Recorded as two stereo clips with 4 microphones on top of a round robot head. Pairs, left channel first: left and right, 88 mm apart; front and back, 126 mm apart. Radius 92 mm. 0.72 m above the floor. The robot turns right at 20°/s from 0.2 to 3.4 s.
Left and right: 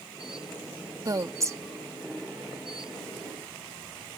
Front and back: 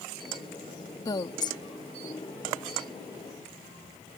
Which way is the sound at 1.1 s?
55° right.